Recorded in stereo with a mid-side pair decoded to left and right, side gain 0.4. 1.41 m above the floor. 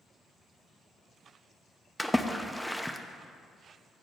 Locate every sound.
2.0 s a splash: 5° left, 0.5 m